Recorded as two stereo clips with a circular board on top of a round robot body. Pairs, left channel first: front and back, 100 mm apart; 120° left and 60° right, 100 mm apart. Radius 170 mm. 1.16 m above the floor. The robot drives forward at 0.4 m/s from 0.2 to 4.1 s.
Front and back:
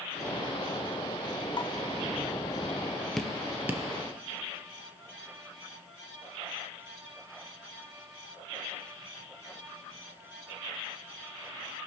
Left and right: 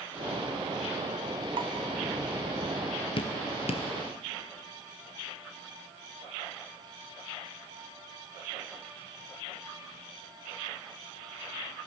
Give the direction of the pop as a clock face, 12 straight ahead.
1 o'clock.